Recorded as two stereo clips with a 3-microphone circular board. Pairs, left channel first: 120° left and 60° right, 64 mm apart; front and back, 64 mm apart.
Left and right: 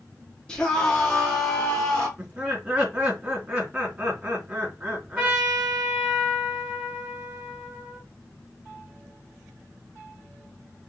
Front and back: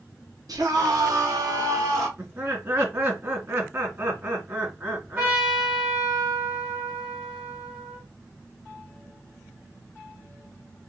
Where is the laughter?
135° right, 2.5 m.